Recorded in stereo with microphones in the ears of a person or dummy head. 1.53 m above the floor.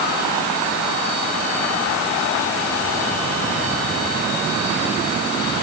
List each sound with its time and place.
Only background noise.